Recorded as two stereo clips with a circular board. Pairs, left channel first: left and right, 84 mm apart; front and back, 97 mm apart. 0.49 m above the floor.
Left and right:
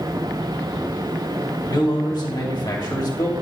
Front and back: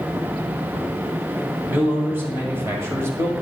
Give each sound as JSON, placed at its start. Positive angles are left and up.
{"t": 1.7, "sound": "a man speaking", "azimuth_deg": 110, "distance_m": 2.5}